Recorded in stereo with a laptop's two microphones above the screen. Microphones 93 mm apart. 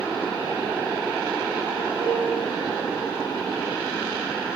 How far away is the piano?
About 1.4 m.